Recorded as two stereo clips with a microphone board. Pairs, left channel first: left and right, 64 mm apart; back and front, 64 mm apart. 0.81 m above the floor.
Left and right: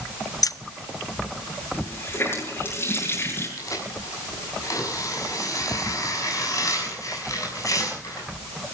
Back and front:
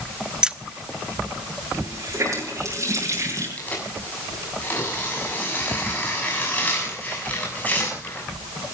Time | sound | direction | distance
0.4 | keys jangling | 80° left | 0.7 m
1.7 | a running tap | 40° left | 8 m
3.6 | tearing paper | 115° left | 6.5 m